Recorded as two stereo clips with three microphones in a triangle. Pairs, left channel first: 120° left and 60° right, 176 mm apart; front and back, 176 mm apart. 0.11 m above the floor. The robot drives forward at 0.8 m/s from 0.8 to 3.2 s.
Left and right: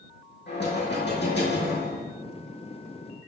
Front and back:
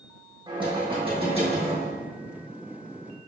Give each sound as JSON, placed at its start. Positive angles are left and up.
{"t": 0.5, "sound": "knocking", "azimuth_deg": 120, "distance_m": 4.0}